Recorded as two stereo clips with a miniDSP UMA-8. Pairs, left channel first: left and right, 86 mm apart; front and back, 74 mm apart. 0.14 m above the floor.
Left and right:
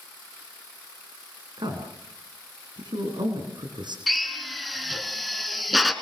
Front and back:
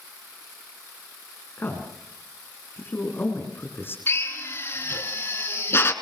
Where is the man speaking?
60° right, 7.5 m.